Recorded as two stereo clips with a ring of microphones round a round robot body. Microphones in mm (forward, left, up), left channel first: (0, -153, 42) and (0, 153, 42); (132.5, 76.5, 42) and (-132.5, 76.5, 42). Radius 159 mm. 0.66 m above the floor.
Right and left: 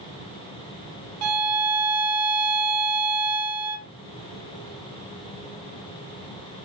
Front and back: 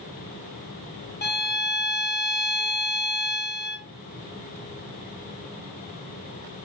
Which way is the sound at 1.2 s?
55° left.